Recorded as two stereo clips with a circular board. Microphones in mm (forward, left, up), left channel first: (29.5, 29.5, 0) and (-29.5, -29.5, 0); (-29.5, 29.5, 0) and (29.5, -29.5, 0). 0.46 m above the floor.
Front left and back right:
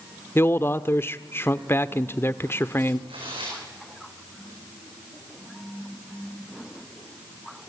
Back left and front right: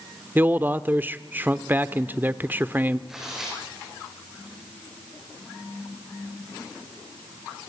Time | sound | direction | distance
0.3 | a man speaking | 5° left | 0.9 m
3.1 | tearing paper | 130° right | 8 m